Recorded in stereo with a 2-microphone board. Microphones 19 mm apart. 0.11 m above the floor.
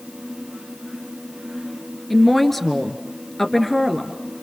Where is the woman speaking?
10° left (ahead or behind), 1.8 m.